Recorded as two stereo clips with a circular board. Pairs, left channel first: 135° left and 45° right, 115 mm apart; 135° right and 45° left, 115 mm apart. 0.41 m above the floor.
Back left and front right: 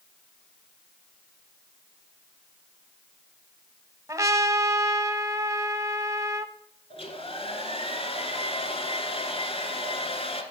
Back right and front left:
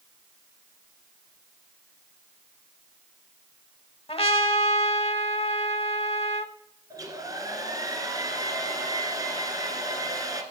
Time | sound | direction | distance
4.1 | a trumpet | 105° right | 0.8 m
6.9 | a hair dryer | 100° left | 1.8 m